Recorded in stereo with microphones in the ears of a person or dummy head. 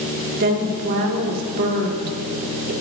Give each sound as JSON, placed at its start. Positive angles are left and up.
{"t": 0.4, "sound": "a woman speaking", "side_deg": -50, "distance_m": 2.5}